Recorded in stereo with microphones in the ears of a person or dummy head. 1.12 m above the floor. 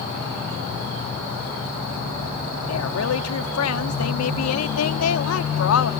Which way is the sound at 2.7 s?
85° left.